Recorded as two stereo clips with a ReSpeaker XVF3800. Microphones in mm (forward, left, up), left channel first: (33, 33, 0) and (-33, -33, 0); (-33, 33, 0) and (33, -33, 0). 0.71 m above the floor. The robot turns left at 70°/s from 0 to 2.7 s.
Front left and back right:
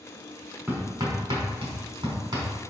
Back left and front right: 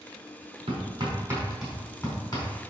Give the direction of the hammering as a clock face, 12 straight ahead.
2 o'clock.